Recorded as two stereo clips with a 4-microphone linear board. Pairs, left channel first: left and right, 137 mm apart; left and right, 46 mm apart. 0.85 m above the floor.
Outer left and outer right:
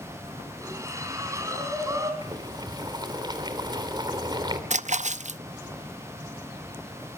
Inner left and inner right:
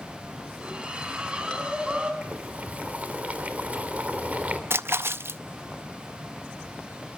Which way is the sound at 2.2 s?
35° right (ahead or behind).